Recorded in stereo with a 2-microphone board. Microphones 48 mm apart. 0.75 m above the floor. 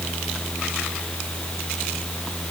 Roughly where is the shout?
I don't hear a shout.